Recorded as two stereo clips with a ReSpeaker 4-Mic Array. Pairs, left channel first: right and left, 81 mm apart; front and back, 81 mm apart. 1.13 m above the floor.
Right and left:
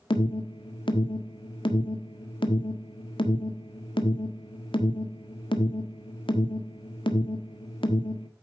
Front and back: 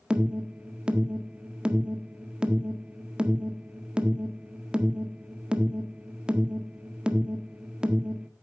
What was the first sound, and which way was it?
An alarm, 100° right.